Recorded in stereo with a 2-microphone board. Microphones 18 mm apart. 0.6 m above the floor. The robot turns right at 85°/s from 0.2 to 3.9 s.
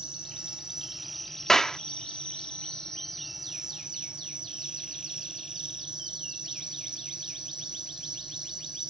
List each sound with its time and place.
0.0 s an insect: 85° right; by 8.9 s 130° right
1.5 s a clap: 35° left (ahead or behind); by 1.8 s 15° left (ahead or behind)